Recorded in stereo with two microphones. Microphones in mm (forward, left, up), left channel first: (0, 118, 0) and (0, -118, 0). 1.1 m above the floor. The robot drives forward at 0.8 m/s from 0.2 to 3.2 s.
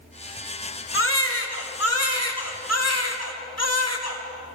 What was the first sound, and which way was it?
A baby crying, 55° left (ahead or behind).